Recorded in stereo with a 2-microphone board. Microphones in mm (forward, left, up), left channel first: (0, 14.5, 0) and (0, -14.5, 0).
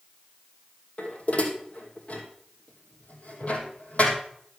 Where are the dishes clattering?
60° left (ahead or behind), 2.5 m.